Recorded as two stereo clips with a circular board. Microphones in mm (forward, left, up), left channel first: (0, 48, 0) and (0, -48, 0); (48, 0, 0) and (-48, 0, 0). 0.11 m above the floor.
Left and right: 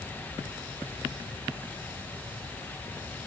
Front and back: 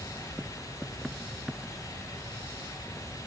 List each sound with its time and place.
Only background noise.